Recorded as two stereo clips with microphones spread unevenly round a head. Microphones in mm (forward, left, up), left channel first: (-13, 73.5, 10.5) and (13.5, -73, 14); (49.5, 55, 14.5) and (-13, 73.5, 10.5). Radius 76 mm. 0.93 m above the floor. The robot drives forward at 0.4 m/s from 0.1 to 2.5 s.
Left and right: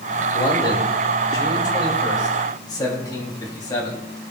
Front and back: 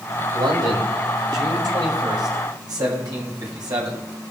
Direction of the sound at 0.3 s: 165° left.